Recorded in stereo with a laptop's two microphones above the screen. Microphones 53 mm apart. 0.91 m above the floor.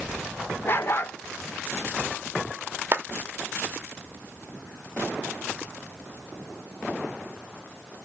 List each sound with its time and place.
0.7 s a dog barking: 45° left (ahead or behind), 0.9 m
2.9 s a clap: 45° right (ahead or behind), 1.2 m